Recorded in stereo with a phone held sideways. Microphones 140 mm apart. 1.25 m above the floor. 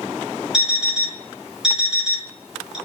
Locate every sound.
0.5 s an alarm clock: 5° right (ahead or behind), 1.5 m